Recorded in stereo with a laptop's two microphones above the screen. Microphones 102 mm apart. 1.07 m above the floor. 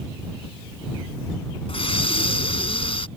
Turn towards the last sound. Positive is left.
turn(degrees=70)  # may be behind; listen again after turning